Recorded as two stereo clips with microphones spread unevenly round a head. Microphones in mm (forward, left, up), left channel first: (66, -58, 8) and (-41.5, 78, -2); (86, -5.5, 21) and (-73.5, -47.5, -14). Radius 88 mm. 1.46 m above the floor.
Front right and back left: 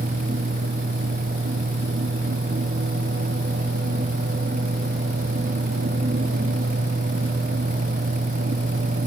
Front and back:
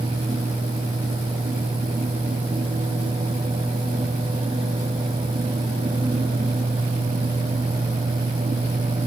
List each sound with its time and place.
Only background noise.